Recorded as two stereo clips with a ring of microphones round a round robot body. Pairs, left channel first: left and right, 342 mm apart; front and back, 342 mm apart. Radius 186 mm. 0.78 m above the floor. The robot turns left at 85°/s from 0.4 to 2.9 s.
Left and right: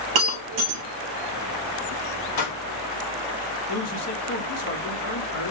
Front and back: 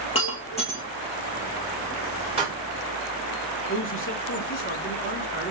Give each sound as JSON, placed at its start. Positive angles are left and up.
{"t": 0.1, "sound": "breaking glass", "azimuth_deg": -75, "distance_m": 2.0}
{"t": 2.4, "sound": "a pop", "azimuth_deg": 105, "distance_m": 3.5}
{"t": 3.7, "sound": "a man speaking", "azimuth_deg": 50, "distance_m": 2.5}